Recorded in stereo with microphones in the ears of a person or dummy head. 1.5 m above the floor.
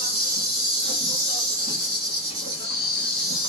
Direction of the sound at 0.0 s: 45° right (ahead or behind).